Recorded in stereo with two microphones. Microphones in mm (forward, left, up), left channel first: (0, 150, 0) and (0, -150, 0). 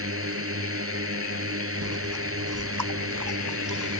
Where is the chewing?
85° right.